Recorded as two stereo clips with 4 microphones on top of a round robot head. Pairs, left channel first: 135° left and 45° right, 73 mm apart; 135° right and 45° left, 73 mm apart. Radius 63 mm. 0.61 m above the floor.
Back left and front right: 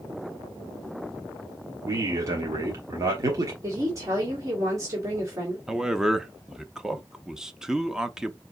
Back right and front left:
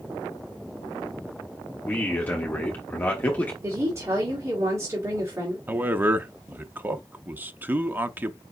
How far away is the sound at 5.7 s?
About 0.6 m.